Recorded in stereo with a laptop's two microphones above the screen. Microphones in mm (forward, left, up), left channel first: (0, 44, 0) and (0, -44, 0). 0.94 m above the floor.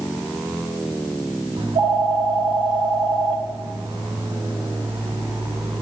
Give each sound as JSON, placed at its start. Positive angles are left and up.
{"t": 1.6, "sound": "a phone ringing", "side_deg": -75, "distance_m": 1.6}